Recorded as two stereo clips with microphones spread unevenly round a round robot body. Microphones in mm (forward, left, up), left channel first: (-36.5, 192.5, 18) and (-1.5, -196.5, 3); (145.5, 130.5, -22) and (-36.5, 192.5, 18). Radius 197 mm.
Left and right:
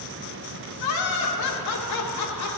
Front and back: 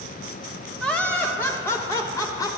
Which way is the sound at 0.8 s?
60° left.